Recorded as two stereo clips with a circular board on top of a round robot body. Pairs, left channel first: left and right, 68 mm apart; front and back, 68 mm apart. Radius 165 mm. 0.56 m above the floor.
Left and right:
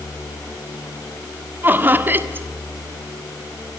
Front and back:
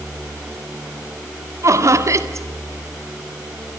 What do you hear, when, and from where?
1.6 s laughter: 150° right, 1.9 m